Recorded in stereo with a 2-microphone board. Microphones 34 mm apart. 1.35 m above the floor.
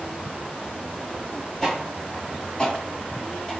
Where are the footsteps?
15° left (ahead or behind), 1.7 m.